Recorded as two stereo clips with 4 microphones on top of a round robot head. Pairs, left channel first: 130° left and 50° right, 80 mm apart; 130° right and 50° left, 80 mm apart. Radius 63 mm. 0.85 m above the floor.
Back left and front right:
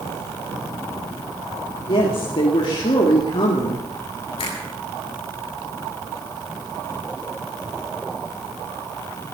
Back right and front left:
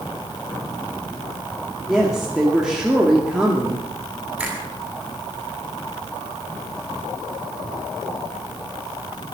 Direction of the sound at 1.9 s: 130° left.